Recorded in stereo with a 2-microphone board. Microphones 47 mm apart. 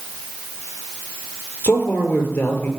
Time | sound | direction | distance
1.6 | a man speaking | 40° left (ahead or behind) | 4 m